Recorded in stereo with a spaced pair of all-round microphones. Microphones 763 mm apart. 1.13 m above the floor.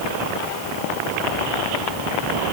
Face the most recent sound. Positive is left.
No sound to turn to.